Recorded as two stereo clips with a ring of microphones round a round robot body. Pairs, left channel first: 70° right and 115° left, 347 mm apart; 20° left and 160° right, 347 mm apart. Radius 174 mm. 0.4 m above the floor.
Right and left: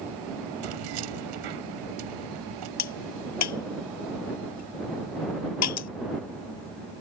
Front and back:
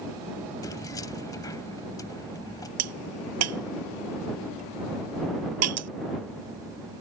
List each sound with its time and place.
0.6 s keys jangling: 100° left
2.8 s a crack: 110° right